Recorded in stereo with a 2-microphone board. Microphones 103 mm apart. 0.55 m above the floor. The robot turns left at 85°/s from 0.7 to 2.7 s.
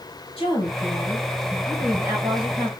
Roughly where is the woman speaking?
Left.